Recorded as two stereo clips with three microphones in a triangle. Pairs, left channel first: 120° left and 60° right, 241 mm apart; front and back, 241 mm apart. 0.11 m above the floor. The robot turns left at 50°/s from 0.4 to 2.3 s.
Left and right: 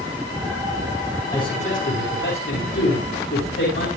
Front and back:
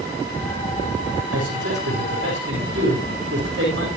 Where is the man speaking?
165° right, 8 m; by 3.9 s 145° left, 8 m.